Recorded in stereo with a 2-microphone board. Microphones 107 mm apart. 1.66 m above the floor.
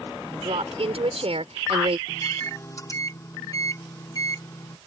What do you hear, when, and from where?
0.3 s a woman speaking: 65° right (ahead or behind)
2.1 s a microwave: 30° left (ahead or behind)